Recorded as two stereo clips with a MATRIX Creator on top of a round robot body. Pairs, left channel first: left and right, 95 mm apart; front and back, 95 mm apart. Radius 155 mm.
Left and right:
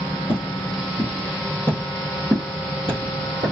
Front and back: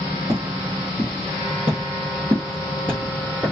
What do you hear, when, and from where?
0.3 s footsteps: 130° left, 1.7 m; by 3.5 s 90° right, 1.3 m